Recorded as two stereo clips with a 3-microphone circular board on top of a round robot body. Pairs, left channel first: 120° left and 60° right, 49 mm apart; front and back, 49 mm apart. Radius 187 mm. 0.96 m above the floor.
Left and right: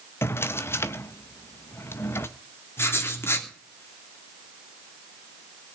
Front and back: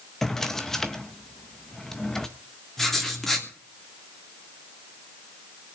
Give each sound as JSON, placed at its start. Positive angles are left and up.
{"t": 0.2, "sound": "a drawer", "azimuth_deg": 80, "distance_m": 0.5}
{"t": 2.8, "sound": "writing", "azimuth_deg": 80, "distance_m": 3.0}